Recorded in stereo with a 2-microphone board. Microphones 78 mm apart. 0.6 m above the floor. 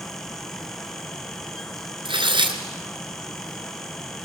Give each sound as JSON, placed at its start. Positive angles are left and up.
{"t": 2.0, "sound": "tearing paper", "side_deg": -80, "distance_m": 2.5}